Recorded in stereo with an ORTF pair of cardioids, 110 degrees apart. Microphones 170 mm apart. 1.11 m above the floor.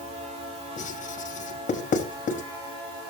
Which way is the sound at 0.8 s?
50° left.